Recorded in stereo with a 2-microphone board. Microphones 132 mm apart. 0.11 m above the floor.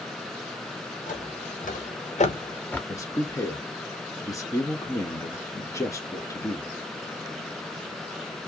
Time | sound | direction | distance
1.1 | footsteps | 75° left (ahead or behind) | 2 m
2.9 | a man speaking | 25° left (ahead or behind) | 1.2 m